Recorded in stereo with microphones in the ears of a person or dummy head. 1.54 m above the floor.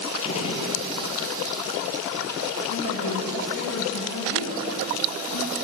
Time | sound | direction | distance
0.2 | a gunshot | 30° left (ahead or behind) | 1.3 m
2.7 | a woman speaking | 90° left | 2 m